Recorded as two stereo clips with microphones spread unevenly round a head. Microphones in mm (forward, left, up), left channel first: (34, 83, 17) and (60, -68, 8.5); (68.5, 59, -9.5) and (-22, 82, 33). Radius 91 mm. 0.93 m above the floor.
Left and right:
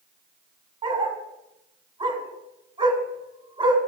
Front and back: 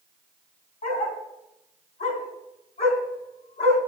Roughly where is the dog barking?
Ahead right.